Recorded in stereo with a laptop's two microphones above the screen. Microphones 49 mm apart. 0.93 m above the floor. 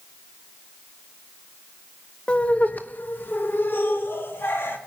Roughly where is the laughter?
Left.